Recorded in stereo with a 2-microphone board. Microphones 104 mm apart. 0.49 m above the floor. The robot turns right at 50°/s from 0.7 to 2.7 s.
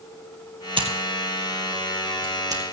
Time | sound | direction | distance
0.8 | scissors | 55° right (ahead or behind) | 2 m